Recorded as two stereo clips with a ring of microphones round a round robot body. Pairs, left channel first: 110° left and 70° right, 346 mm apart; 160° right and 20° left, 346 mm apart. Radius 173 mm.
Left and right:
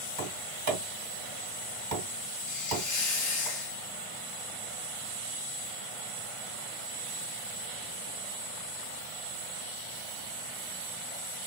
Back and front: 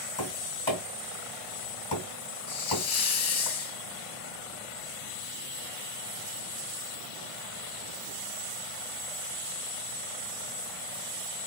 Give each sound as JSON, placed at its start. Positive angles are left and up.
{"t": 0.2, "sound": "tapping", "azimuth_deg": -90, "distance_m": 2.0}
{"t": 2.5, "sound": "a hiss", "azimuth_deg": 170, "distance_m": 1.0}